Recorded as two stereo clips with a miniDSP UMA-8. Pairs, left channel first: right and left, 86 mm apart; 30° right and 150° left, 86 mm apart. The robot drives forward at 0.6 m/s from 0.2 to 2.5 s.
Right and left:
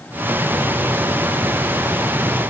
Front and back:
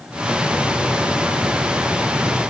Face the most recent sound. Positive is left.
No sound to turn to.